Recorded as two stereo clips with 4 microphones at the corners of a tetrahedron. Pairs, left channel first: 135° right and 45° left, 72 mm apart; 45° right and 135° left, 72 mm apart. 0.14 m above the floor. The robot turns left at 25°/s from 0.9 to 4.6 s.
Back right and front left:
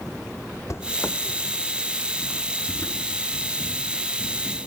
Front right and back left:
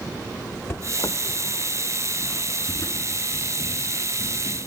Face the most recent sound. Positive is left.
turn(degrees=-125)